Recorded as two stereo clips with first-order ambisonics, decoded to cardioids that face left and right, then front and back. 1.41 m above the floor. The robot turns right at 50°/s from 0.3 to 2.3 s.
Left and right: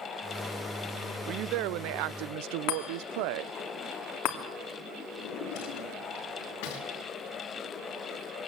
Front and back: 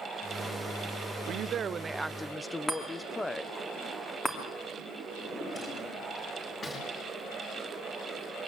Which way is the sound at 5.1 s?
75° left.